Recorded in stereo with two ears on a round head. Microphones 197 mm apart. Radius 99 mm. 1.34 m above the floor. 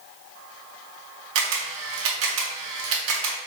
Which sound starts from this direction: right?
A camera shutter, at 1.4 s.